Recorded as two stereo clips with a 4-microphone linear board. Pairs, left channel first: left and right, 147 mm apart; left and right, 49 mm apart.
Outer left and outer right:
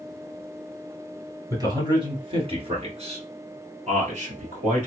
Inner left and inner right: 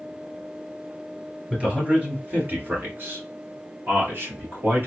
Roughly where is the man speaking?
Right.